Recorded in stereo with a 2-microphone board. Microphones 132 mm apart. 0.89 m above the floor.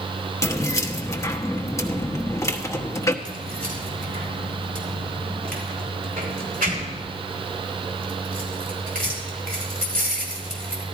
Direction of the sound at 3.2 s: 80° right.